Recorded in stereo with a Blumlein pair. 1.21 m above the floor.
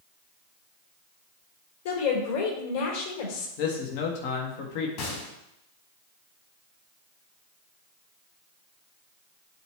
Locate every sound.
1.9 s a woman speaking: 55° left, 4 m
3.6 s a man speaking: 50° left, 1.8 m
5.0 s a gunshot: 45° left, 4 m